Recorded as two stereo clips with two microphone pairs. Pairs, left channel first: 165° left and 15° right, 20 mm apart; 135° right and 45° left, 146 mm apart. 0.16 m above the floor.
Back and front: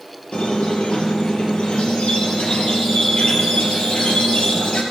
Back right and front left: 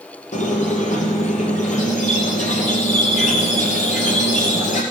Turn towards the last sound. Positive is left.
turn(degrees=-160)